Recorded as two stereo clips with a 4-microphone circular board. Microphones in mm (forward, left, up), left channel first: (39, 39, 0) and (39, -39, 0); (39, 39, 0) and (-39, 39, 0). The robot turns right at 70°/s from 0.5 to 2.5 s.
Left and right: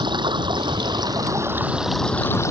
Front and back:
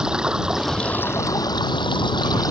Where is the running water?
100° right; by 2.5 s 40° left.